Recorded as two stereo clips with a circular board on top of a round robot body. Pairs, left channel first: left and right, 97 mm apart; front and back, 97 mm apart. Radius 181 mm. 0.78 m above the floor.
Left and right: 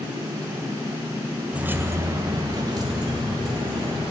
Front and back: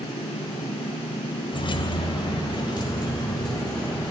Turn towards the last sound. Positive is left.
turn(degrees=-50)